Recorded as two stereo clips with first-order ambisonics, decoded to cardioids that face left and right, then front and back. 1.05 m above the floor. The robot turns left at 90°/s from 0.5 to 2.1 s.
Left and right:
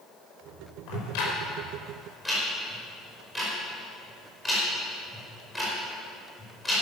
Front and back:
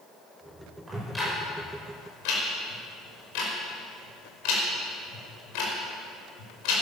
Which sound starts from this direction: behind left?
Ticking, at 0.9 s.